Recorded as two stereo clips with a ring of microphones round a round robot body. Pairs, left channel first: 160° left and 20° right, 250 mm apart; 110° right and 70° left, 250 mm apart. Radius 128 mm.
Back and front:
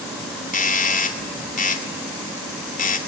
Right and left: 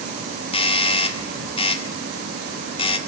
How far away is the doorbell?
About 2 m.